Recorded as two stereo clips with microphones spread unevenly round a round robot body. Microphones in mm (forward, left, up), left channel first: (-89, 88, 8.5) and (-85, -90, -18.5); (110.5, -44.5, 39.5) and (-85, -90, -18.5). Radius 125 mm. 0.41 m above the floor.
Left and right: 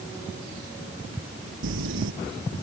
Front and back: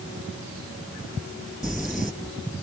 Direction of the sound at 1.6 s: 80° right.